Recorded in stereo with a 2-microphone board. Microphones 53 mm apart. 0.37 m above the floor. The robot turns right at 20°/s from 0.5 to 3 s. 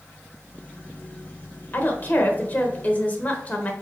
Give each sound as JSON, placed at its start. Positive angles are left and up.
{"t": 1.7, "sound": "a woman speaking", "side_deg": 40, "distance_m": 1.1}